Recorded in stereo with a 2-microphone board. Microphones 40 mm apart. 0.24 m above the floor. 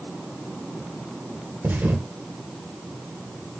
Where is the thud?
55° right (ahead or behind), 1.4 m.